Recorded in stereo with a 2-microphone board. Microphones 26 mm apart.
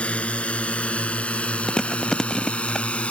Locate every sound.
0.0 s a drone: 65° left (ahead or behind)
1.7 s chewing: 25° left (ahead or behind)